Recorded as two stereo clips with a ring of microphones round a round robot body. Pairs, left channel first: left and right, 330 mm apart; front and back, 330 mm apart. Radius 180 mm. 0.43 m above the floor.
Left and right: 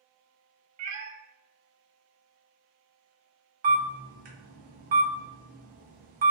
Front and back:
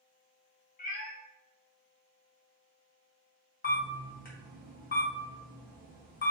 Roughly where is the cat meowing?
Ahead right.